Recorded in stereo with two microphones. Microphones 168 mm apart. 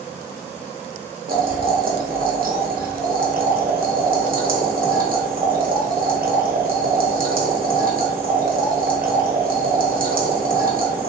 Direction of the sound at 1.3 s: 60° right (ahead or behind).